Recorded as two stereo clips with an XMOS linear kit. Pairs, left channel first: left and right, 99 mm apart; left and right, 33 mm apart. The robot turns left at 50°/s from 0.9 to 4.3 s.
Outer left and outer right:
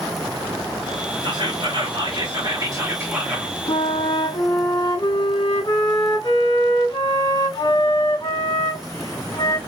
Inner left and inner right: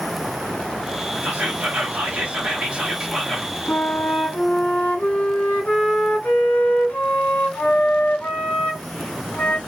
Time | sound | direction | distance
1.2 | whispering | 65° right | 1.6 m
3.7 | a flute | 85° left | 1.6 m